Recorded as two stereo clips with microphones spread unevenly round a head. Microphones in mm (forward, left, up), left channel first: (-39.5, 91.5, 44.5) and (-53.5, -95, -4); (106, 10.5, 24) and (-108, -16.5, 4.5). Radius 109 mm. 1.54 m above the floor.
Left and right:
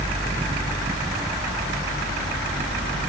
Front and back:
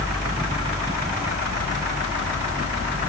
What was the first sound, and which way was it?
Only background noise.